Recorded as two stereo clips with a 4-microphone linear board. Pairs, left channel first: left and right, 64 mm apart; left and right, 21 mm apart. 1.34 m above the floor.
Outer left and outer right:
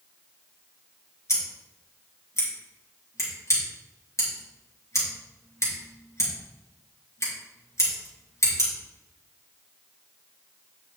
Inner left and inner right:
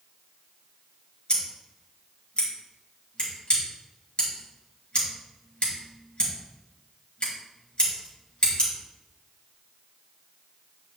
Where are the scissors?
50° left (ahead or behind), 3.5 m.